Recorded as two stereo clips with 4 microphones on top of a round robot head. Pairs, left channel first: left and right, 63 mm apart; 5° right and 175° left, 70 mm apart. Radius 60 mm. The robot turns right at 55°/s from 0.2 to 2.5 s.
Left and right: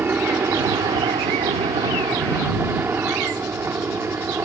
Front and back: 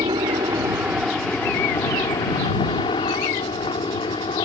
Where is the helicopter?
150° right; by 4.5 s 25° right.